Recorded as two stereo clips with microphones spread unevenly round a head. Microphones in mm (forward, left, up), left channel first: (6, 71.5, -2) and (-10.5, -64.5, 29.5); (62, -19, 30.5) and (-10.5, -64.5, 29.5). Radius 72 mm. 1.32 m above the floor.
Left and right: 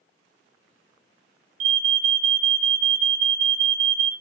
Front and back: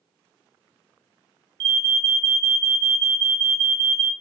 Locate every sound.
1.6 s an alarm: 115° right, 0.6 m